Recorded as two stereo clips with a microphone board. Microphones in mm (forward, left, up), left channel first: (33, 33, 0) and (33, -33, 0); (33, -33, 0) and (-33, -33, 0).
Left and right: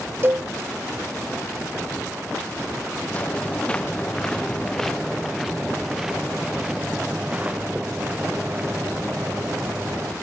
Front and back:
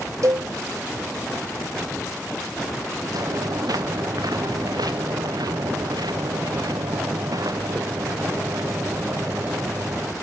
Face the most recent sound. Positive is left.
turn(degrees=-140)